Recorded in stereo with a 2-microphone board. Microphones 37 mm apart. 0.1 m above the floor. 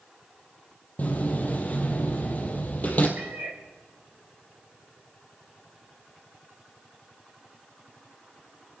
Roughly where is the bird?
I don't hear a bird.